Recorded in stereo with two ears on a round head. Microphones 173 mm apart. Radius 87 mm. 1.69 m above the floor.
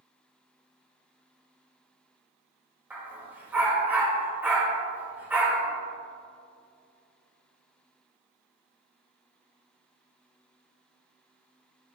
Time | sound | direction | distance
2.9 | a dog barking | 10° right (ahead or behind) | 3 m